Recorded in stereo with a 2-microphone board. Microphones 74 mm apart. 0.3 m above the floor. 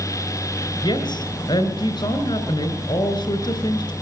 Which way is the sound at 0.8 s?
70° left (ahead or behind).